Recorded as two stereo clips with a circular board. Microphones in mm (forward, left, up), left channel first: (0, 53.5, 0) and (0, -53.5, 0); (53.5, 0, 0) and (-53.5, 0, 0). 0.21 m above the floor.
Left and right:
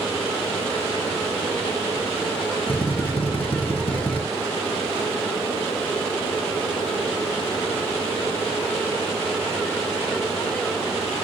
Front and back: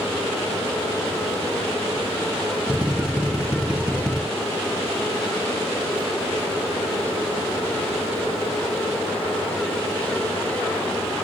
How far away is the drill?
About 2.5 m.